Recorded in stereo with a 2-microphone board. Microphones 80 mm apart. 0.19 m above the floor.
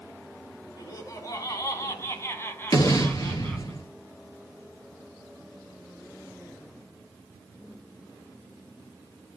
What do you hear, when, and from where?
0.8 s laughter: 45° left (ahead or behind), 2.5 m; by 3.7 s 10° left (ahead or behind), 2.0 m
2.7 s an explosion: 50° left (ahead or behind), 2 m